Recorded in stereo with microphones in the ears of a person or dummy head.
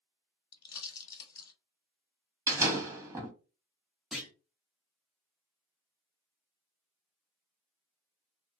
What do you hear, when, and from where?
0.5 s a pop: 25° left (ahead or behind), 1.3 m
2.5 s a door slam: 15° right (ahead or behind), 1.2 m
4.1 s a clunk: 5° right (ahead or behind), 1.1 m